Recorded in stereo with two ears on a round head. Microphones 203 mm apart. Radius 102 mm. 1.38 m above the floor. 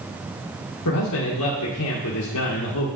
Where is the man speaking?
75° left (ahead or behind), 1.5 m.